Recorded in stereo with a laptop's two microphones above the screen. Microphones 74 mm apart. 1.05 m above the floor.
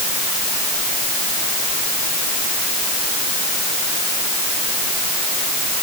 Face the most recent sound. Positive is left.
No sound to turn to.